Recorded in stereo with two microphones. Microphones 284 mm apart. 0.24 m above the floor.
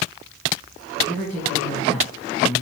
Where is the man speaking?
5° left (ahead or behind), 3.5 m.